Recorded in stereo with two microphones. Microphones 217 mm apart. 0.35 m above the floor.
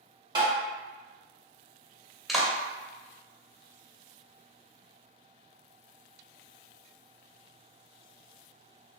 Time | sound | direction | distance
0.3 | tapping | 20° right (ahead or behind) | 1.3 m
2.3 | a clap | centre (ahead or behind) | 0.7 m